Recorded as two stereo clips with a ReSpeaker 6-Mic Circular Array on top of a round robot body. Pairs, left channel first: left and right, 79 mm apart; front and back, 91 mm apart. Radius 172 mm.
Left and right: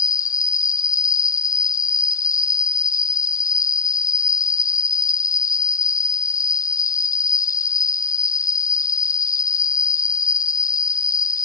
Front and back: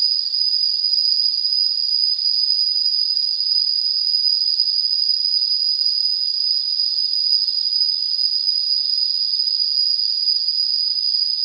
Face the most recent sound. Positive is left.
turn(degrees=135)